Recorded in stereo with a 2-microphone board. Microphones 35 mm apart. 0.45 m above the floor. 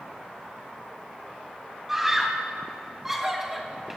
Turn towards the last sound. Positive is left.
turn(degrees=-15)  # may be behind; listen again after turning